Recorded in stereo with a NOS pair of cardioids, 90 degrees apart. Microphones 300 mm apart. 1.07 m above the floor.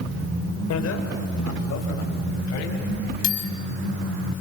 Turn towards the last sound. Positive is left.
turn(degrees=75)